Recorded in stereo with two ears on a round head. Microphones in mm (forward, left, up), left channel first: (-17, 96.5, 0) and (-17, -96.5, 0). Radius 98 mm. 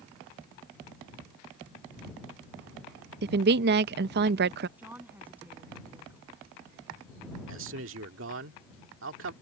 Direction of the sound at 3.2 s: 50° right (ahead or behind).